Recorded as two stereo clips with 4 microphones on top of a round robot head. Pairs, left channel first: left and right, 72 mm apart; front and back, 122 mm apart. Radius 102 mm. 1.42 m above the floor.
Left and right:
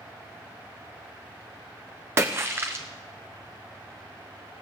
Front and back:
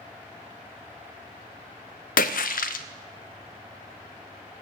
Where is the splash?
25° right, 0.5 m.